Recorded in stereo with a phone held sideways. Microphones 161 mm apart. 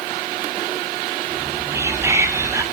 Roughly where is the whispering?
Centre.